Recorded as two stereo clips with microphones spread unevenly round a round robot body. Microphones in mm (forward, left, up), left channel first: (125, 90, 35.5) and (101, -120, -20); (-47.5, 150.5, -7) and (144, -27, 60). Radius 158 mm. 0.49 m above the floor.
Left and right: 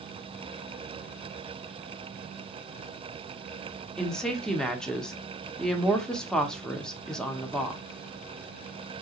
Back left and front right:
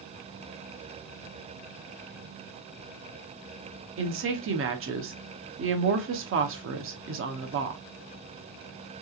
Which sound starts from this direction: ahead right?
A woman speaking, at 4.0 s.